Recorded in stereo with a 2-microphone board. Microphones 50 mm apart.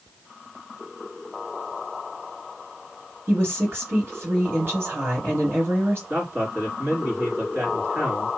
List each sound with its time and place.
3.3 s a woman speaking: 50° right (ahead or behind), 2.5 m
6.1 s a man speaking: 50° right (ahead or behind), 2.5 m